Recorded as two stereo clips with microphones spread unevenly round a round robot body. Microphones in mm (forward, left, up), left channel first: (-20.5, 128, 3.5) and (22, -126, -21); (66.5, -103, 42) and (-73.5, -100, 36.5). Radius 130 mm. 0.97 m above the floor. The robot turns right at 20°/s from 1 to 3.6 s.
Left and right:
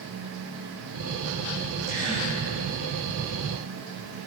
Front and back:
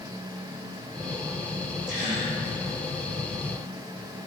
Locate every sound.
1.9 s a gasp: 155° left, 5.5 m; by 2.3 s 165° left, 5.5 m